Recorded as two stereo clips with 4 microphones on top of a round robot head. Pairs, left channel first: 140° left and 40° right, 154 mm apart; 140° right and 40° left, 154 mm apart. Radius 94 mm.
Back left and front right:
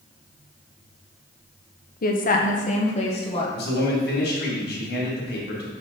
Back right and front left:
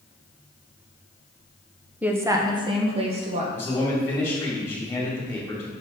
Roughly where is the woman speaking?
Behind left.